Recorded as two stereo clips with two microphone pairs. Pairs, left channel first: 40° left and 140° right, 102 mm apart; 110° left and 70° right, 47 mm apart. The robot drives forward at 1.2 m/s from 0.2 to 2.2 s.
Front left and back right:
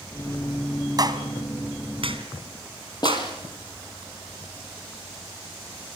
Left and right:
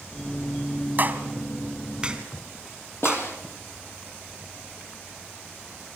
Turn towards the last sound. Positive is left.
turn(degrees=85)